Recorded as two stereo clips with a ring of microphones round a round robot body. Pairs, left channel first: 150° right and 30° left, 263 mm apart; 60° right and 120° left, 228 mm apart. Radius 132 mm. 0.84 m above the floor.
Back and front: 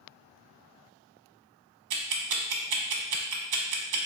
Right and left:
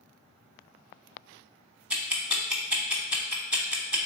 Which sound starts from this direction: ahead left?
Ticking, at 1.9 s.